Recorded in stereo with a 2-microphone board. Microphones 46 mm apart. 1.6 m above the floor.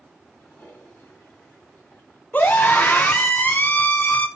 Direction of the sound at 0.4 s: 45° left (ahead or behind).